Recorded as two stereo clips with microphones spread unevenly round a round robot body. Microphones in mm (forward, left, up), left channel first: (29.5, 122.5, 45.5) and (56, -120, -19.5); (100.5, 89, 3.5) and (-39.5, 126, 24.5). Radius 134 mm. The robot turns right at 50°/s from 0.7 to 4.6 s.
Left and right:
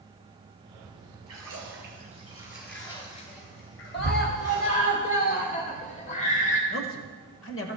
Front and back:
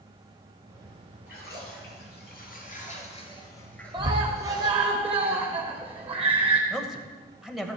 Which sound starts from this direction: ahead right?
A splash, at 1.3 s.